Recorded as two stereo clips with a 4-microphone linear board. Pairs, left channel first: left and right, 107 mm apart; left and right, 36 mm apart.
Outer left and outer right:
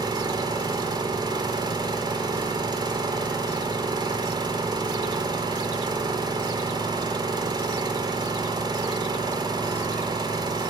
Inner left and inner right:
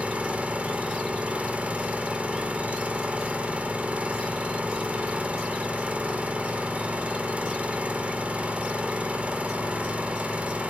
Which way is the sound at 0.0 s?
45° right (ahead or behind).